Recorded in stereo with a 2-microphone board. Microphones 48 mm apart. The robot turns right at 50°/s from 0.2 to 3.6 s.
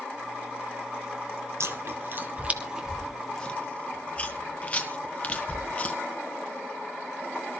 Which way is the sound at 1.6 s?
70° right (ahead or behind).